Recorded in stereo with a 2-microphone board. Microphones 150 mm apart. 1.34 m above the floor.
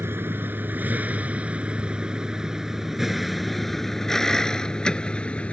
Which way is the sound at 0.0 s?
15° right (ahead or behind).